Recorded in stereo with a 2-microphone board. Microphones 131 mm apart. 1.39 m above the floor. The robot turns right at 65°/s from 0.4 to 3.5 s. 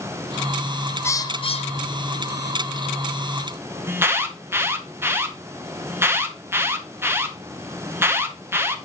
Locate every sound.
1.0 s a bird: 20° left (ahead or behind), 0.6 m; by 2.4 s 65° left (ahead or behind), 0.6 m
3.9 s an alarm: 20° right (ahead or behind), 0.9 m